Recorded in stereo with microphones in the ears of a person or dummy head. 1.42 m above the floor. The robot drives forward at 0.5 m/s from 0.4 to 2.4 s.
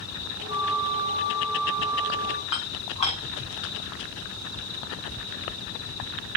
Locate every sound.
0.5 s a flute: 25° right (ahead or behind), 1.3 m; by 2.4 s 15° right (ahead or behind), 2 m
2.5 s dishes clattering: 35° left (ahead or behind), 9 m